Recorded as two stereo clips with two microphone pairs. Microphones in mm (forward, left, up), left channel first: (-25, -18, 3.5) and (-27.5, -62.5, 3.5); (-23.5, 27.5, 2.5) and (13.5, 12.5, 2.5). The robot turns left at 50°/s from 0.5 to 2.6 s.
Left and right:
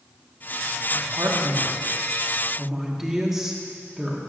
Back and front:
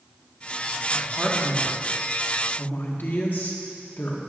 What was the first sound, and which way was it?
A man speaking, 100° right.